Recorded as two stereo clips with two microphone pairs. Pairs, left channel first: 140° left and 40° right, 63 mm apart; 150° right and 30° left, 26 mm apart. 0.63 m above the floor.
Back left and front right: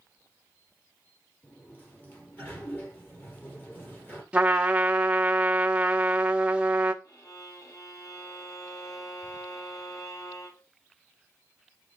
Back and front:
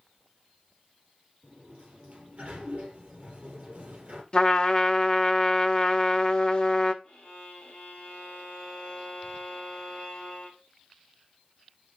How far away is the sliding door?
About 3.5 m.